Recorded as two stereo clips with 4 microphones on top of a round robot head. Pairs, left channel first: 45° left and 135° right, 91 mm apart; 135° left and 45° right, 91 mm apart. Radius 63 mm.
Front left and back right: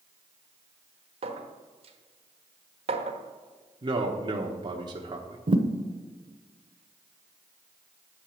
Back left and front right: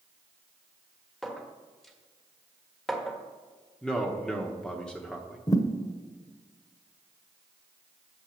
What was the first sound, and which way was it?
A clink, 140° right.